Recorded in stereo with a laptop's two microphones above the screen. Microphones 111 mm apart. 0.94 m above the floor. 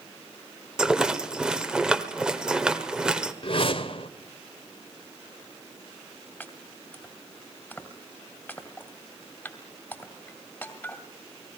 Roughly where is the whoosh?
Left.